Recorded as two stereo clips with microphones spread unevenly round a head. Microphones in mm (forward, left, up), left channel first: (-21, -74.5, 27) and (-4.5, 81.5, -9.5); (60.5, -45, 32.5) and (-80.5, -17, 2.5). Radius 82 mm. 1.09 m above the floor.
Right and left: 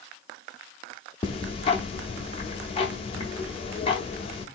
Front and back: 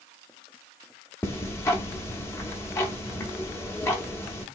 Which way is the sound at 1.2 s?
70° right.